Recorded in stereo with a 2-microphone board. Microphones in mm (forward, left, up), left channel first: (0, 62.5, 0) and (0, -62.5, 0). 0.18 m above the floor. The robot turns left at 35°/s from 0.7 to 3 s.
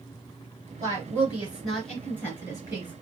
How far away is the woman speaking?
About 2.5 m.